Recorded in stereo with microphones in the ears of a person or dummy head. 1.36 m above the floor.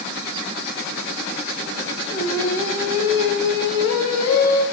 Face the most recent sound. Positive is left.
turn(degrees=85)